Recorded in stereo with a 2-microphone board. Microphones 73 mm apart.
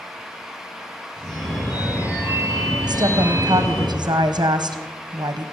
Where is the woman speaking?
70° right (ahead or behind), 0.9 m.